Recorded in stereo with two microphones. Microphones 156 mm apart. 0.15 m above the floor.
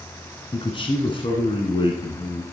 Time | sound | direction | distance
0.5 | a man speaking | 35° left (ahead or behind) | 1.7 m